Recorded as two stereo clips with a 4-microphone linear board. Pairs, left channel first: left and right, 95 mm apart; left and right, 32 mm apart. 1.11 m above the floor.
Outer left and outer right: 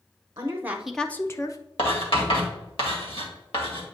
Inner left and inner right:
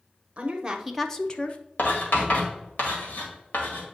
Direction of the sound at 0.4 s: 35° right (ahead or behind).